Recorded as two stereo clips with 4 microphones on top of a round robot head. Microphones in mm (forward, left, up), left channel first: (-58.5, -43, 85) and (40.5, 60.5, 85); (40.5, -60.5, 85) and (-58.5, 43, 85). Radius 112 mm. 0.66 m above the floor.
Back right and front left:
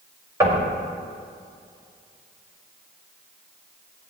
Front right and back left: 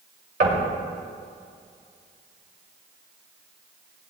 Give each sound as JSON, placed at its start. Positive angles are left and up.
{"t": 0.4, "sound": "knocking", "azimuth_deg": 115, "distance_m": 2.5}